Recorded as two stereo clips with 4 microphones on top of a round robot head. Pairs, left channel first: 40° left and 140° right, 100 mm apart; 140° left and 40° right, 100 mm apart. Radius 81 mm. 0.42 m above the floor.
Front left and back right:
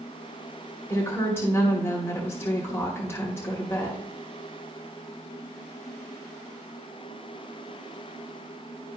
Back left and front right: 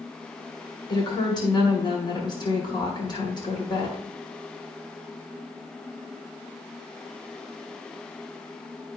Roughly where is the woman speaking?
Left.